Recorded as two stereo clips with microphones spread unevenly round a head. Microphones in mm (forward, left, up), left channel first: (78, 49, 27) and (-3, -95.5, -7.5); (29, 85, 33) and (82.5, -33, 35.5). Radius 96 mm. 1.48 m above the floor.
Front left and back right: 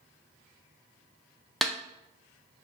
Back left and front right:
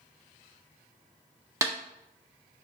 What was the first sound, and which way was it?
A snare drum, 10° right.